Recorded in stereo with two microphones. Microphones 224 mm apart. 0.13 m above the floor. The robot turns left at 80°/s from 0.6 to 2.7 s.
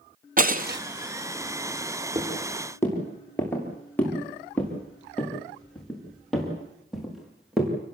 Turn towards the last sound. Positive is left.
turn(degrees=0)  # may be behind; listen again after turning